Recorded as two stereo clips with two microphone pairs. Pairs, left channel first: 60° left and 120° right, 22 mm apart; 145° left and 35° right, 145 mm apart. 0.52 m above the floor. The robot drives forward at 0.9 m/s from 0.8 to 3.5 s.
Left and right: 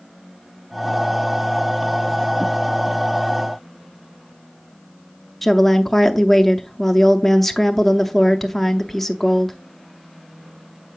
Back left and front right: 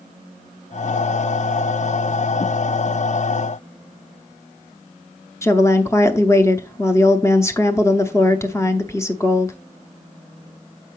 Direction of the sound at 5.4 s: 135° left.